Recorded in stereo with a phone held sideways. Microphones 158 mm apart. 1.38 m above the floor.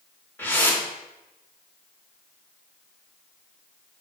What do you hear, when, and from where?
0.4 s a whoosh: 10° left (ahead or behind), 1.5 m